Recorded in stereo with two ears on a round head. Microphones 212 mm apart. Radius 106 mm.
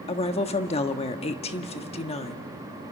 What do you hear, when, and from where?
0.1 s a woman speaking: 25° left (ahead or behind), 1.2 m